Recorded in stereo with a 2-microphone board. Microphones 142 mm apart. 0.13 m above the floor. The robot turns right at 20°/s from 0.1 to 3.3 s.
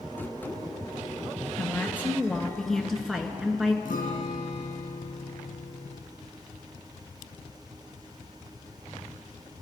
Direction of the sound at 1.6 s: 155° left.